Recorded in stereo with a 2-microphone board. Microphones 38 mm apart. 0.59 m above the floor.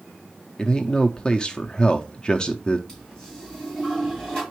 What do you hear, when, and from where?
0.6 s a man speaking: 25° left (ahead or behind), 0.6 m
2.9 s a toilet flushing: 15° left (ahead or behind), 3.5 m